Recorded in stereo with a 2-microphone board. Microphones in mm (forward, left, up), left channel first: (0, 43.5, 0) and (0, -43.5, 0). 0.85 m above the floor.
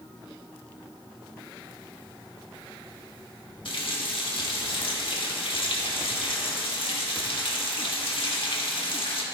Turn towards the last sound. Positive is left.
turn(degrees=65)  # may be behind; listen again after turning